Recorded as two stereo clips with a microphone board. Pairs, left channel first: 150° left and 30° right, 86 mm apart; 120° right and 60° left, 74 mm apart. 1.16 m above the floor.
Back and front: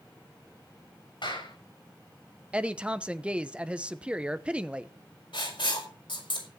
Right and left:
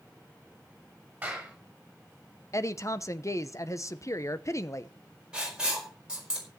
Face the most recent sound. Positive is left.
turn(degrees=140)